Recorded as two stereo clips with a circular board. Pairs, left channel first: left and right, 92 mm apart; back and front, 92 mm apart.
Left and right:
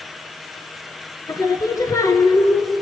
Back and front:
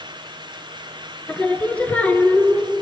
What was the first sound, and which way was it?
Singing, 110° left.